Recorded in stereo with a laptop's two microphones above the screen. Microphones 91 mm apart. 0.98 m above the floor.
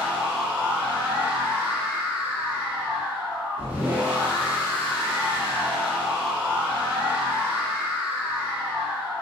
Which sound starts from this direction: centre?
A machine running, at 0.0 s.